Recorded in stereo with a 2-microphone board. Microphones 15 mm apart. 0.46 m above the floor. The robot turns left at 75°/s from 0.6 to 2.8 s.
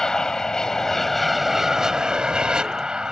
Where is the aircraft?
50° left; by 3.1 s 115° right.